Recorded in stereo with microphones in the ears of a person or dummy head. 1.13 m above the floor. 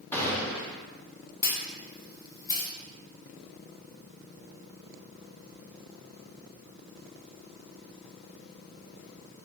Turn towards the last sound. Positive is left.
turn(degrees=15)  # may be behind; listen again after turning